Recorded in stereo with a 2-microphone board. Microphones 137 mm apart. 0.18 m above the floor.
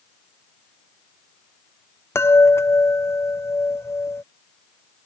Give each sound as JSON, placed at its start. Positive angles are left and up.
{"t": 2.1, "sound": "a chime", "side_deg": 20}